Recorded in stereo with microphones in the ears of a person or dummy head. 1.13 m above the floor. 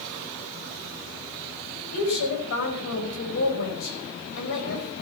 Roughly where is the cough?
I don't hear a cough.